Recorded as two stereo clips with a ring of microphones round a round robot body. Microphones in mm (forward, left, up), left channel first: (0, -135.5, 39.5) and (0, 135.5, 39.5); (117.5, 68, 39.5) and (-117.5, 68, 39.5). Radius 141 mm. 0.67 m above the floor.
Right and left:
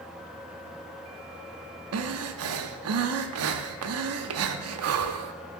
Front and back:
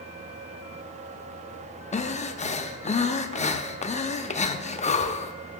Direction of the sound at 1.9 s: 60° left.